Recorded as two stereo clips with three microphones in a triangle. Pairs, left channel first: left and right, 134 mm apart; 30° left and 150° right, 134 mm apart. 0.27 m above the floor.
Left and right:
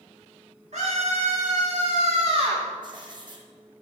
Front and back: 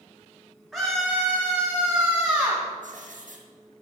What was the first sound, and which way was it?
A scream, 65° right.